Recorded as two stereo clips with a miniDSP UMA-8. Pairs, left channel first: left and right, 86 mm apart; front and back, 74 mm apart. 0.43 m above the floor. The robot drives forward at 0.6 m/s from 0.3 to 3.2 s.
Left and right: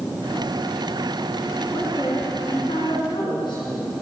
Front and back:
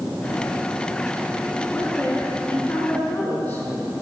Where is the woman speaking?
60° left, 6 m; by 3.6 s 70° left, 5.5 m.